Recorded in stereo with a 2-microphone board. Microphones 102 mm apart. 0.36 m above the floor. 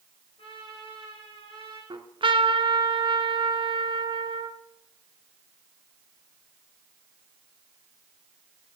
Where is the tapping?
No tapping in this recording.